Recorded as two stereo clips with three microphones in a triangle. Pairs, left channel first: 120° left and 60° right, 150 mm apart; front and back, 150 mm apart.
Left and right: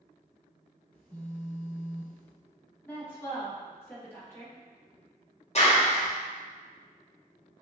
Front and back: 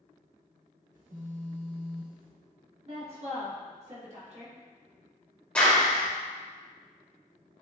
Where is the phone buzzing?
155° right, 1.0 m.